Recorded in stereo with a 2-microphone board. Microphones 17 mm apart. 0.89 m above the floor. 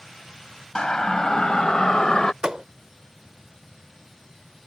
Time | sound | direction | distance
0.8 | a siren | 45° left (ahead or behind) | ?
2.4 | a thud | 50° right (ahead or behind) | ?